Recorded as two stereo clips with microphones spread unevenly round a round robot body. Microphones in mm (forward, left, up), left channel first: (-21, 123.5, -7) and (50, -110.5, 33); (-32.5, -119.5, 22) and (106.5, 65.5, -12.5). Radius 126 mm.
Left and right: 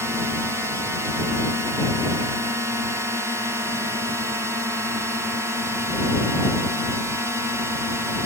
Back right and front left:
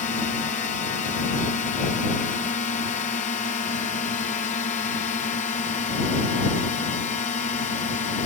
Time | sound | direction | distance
0.0 | a drone | 160° right | ?